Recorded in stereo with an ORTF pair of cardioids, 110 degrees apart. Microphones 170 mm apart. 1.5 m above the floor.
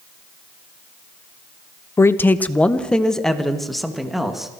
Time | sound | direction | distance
2.0 | a man speaking | 15° left | 1.0 m